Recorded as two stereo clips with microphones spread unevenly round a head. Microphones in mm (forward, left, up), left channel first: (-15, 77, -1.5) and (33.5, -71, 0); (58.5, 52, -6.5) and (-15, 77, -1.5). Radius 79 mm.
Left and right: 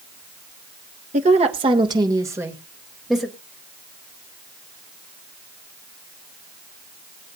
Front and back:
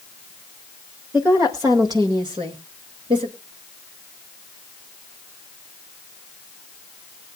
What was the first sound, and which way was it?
A woman speaking, 120° right.